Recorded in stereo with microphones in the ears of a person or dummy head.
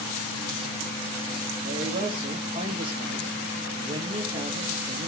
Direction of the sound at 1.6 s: 35° right (ahead or behind).